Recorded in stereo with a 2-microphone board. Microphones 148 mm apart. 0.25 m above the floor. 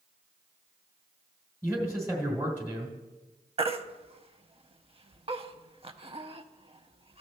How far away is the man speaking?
About 1.5 m.